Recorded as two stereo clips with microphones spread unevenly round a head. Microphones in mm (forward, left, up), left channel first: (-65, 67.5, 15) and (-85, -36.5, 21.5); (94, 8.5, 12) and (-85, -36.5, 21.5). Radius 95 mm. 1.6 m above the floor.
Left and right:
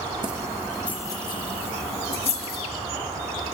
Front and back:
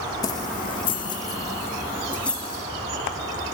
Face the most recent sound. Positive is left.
turn(degrees=100)